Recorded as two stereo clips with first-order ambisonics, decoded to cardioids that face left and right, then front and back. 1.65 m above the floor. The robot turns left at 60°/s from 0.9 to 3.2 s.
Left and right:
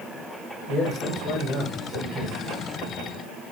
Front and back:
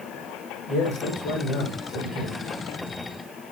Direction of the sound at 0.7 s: 15° left.